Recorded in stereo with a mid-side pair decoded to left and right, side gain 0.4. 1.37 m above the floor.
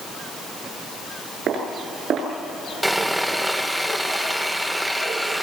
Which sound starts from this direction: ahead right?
Footsteps, at 1.5 s.